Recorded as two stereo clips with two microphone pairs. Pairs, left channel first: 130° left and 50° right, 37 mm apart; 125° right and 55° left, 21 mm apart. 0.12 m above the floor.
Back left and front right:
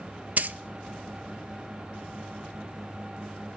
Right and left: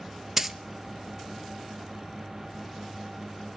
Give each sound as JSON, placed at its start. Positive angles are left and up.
{"t": 0.4, "sound": "a dropped coin", "azimuth_deg": -20, "distance_m": 0.7}